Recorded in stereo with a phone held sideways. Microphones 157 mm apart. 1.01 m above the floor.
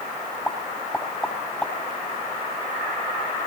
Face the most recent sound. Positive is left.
turn(degrees=10)  # may be behind; listen again after turning